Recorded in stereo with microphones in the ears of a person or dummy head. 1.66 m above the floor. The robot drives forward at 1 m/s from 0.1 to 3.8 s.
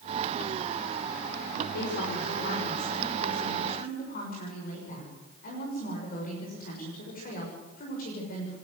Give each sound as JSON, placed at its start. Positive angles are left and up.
{"t": 1.7, "sound": "a woman speaking", "side_deg": 60, "distance_m": 5.0}